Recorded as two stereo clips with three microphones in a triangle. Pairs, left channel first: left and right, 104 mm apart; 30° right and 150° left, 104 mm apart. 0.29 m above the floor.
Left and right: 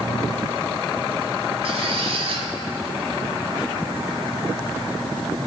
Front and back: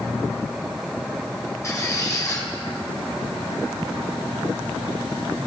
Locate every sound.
1.6 s a squeak: 85° right, 1.1 m